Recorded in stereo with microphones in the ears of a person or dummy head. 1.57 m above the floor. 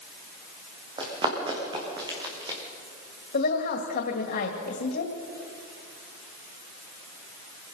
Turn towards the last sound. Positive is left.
turn(degrees=55)  # may be behind; listen again after turning